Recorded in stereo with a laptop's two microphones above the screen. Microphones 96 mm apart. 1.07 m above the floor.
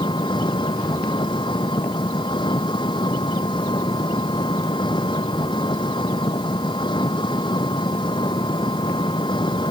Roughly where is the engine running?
Left.